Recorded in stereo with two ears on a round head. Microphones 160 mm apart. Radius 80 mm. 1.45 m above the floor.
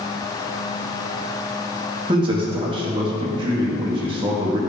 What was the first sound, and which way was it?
A man speaking, 30° right (ahead or behind).